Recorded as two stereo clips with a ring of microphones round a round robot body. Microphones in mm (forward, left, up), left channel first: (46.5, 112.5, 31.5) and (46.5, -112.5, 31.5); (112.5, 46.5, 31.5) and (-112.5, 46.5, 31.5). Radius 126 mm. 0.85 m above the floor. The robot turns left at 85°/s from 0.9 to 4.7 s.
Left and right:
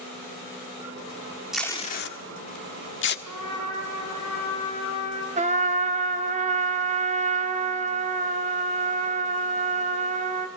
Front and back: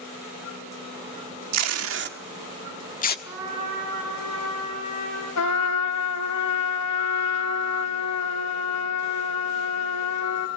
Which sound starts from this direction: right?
A trumpet, at 3.2 s.